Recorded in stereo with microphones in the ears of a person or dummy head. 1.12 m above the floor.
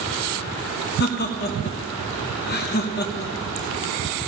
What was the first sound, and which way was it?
Laughter, 45° left (ahead or behind).